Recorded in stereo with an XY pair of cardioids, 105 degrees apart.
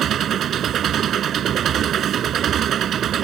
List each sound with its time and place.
0.0 s an engine running: 65° right